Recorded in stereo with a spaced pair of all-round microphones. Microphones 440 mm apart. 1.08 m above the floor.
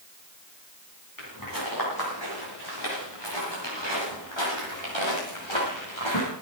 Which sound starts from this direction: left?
Footsteps, at 1.2 s.